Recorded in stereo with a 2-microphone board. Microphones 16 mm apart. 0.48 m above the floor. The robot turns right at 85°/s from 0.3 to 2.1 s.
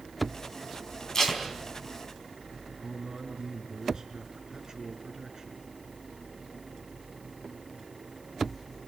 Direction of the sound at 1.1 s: 40° left (ahead or behind).